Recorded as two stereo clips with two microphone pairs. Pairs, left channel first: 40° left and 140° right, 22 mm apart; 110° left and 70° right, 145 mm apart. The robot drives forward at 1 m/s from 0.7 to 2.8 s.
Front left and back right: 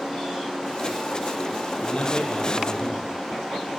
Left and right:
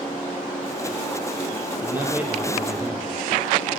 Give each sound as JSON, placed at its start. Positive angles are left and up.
{"t": 1.8, "sound": "a man speaking", "azimuth_deg": 5, "distance_m": 4.0}